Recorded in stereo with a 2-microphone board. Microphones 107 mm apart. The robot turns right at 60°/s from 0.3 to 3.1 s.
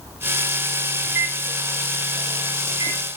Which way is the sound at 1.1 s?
10° right (ahead or behind).